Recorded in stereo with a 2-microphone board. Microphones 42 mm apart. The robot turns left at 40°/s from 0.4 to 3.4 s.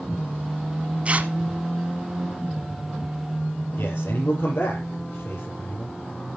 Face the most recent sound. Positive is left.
turn(degrees=70)  # may be behind; listen again after turning